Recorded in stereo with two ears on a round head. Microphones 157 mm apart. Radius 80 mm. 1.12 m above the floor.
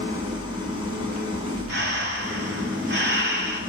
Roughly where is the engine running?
Right.